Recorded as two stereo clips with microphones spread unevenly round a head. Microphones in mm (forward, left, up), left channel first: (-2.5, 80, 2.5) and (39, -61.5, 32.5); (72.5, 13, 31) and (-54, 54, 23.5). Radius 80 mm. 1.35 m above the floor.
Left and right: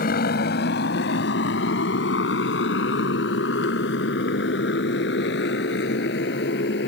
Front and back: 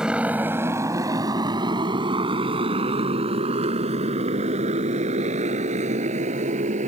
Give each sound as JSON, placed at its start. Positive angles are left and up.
{"t": 0.0, "sound": "a motorcycle", "azimuth_deg": 75}